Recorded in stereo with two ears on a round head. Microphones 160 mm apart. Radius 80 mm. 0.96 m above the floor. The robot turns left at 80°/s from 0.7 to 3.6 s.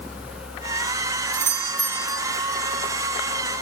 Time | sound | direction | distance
1.3 | a doorbell | 120° right | ?